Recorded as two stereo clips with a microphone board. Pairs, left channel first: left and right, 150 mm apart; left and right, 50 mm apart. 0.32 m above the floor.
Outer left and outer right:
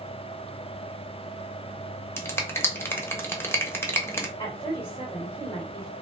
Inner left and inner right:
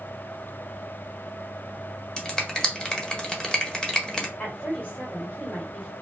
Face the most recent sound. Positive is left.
turn(degrees=30)  # may be behind; listen again after turning